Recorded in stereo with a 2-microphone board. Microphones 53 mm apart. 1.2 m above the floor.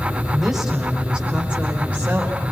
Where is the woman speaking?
5° right (ahead or behind), 4.5 m; by 2.4 s 35° right (ahead or behind), 4.5 m.